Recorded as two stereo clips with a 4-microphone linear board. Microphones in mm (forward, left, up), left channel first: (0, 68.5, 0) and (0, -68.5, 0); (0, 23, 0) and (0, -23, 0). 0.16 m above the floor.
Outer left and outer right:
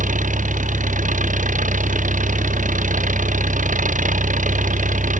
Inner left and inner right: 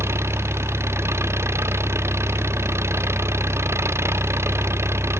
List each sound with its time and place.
0.0 s an engine running: 65° right (ahead or behind)